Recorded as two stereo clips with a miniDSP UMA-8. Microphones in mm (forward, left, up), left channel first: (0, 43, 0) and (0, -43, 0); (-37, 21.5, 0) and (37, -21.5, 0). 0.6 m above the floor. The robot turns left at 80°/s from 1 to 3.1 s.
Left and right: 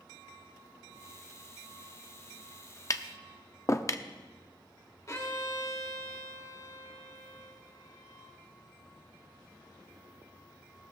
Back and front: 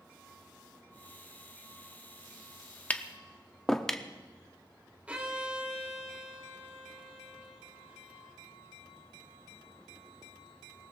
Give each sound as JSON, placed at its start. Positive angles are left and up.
{"t": 2.9, "sound": "tapping", "azimuth_deg": 85, "distance_m": 0.6}
{"t": 5.1, "sound": "a violin", "azimuth_deg": 45, "distance_m": 1.7}